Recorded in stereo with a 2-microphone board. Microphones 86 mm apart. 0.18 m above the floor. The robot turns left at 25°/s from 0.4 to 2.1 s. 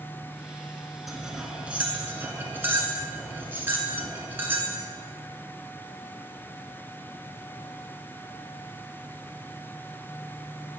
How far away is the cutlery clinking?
About 1.1 m.